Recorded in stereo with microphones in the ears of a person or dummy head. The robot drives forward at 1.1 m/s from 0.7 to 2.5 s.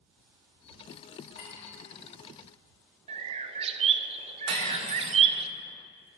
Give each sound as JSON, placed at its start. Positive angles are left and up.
{"t": 1.4, "sound": "a clink", "side_deg": 55, "distance_m": 3.0}
{"t": 3.1, "sound": "a bird", "side_deg": -35, "distance_m": 0.7}
{"t": 4.5, "sound": "cutlery clinking", "side_deg": -70, "distance_m": 2.5}